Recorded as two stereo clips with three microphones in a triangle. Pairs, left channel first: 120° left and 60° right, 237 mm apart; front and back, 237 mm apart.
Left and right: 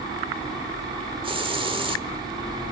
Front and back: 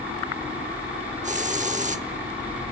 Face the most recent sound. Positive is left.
turn(degrees=-125)